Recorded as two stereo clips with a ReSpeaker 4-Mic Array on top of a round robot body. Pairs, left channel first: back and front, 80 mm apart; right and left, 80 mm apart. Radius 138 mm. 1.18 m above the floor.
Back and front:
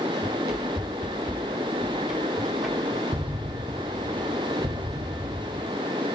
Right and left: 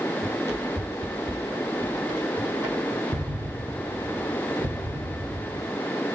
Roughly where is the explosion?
Ahead left.